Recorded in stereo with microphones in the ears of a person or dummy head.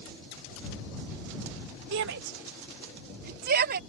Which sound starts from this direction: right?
A shout, at 1.9 s.